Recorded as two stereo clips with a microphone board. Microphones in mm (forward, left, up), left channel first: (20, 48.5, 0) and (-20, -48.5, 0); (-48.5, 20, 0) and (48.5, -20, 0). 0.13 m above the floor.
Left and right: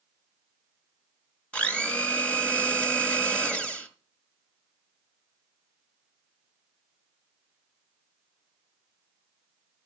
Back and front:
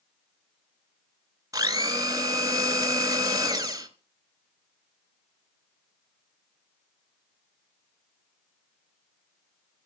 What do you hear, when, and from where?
1.5 s a blender: 5° right, 1.8 m